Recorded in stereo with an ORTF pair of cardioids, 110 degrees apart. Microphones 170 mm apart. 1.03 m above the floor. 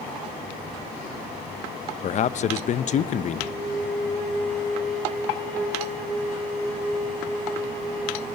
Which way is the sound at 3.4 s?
10° left.